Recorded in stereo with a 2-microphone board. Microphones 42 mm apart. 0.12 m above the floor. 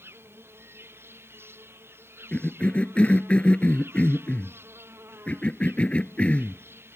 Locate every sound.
0.0 s an insect: 70° right (ahead or behind)
2.3 s a cough: 30° left (ahead or behind)